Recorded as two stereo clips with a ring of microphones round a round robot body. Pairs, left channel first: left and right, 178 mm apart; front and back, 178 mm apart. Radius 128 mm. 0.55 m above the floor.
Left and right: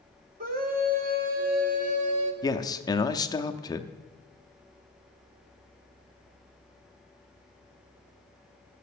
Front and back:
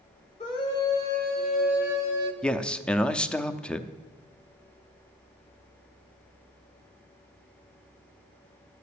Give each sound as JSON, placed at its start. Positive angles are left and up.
{"t": 0.4, "sound": "a scream", "azimuth_deg": -60, "distance_m": 1.8}
{"t": 2.4, "sound": "a man speaking", "azimuth_deg": 75, "distance_m": 0.6}